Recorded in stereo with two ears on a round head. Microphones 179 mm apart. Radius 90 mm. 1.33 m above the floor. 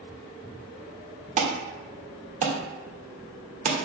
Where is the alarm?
35° right (ahead or behind), 1.6 m.